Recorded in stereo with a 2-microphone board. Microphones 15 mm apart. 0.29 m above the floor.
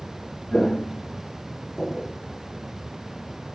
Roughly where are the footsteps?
Left.